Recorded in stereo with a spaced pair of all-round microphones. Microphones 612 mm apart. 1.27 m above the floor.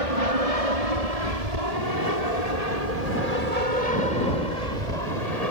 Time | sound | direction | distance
0.0 | an aircraft | 60° right (ahead or behind) | ?